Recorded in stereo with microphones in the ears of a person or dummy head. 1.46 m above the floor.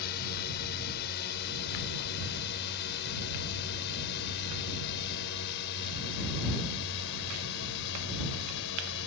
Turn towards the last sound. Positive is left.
turn(degrees=60)  # may be behind; listen again after turning